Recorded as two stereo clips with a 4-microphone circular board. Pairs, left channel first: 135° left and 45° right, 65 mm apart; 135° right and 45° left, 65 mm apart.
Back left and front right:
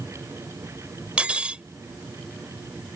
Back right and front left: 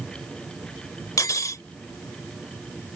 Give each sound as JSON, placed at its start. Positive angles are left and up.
{"t": 1.2, "sound": "cutlery clinking", "azimuth_deg": -115}